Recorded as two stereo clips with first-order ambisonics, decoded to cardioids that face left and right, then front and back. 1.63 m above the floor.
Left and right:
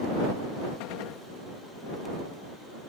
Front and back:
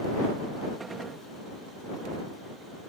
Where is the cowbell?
I don't hear a cowbell.